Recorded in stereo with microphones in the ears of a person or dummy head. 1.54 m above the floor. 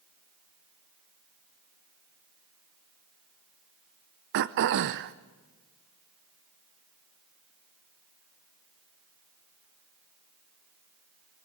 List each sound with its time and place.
4.3 s throat clearing: 45° right (ahead or behind), 0.6 m